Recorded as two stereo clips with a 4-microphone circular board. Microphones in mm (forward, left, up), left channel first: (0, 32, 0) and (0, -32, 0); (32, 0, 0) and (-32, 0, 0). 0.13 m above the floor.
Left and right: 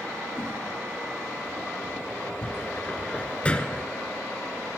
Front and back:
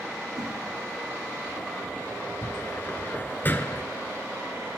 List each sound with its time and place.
0.3 s a whoosh: 145° left, 4 m
2.4 s a cupboard door: 35° left, 0.8 m